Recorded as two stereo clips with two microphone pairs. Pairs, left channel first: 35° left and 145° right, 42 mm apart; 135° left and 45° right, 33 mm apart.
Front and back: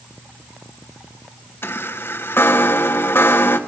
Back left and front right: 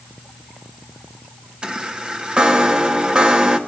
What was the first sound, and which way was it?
A chime, 10° left.